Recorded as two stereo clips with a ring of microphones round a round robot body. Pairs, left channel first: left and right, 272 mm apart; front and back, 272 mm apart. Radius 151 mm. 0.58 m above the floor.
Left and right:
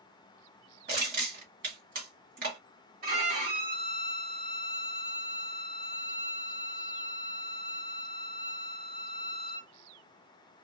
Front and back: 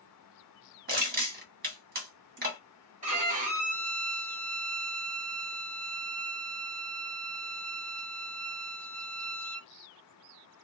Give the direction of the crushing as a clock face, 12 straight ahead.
5 o'clock.